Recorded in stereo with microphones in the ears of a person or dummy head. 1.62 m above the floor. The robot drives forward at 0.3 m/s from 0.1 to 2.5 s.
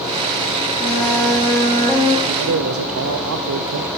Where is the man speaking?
75° right (ahead or behind), 0.6 m; by 3.9 s 80° right, 0.6 m.